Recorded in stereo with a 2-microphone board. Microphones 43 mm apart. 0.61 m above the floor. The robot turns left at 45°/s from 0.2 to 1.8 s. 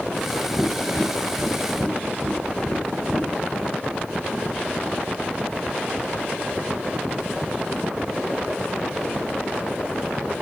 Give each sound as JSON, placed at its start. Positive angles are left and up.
{"t": 0.6, "sound": "tapping", "side_deg": -15, "distance_m": 1.8}